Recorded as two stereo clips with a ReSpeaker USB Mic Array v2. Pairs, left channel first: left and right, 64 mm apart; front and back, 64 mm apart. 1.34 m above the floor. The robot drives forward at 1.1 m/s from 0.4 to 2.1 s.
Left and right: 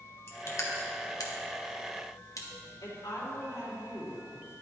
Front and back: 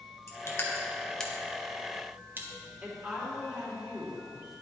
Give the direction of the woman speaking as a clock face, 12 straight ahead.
8 o'clock.